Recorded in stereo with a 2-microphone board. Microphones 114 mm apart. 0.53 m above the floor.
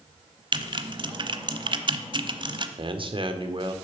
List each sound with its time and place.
0.5 s typing on a keyboard: 45° right (ahead or behind), 0.8 m
2.8 s a man speaking: 50° right (ahead or behind), 1.3 m